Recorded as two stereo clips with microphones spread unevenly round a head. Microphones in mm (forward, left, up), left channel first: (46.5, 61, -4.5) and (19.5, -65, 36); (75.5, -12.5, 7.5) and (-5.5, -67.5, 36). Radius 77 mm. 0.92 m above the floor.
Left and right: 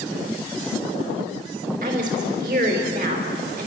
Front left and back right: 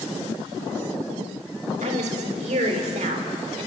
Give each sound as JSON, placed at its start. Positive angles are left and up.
{"t": 1.8, "sound": "a woman speaking", "azimuth_deg": -145, "distance_m": 3.5}